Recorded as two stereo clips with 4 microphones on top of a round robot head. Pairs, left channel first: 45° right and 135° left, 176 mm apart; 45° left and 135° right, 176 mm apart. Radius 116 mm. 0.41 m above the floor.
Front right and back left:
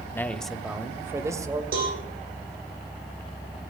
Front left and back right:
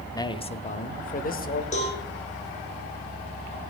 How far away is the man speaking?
About 0.8 m.